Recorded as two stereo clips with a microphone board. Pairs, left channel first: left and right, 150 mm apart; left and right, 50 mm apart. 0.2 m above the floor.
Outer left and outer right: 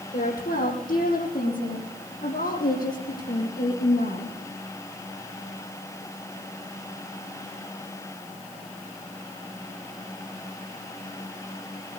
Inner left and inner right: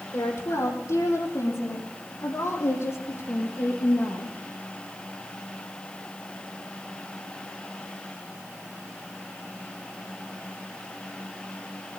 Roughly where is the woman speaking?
Left.